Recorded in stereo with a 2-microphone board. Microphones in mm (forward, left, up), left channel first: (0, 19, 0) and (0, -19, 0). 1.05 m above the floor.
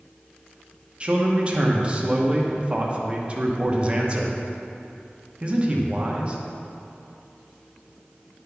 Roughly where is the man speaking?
Right.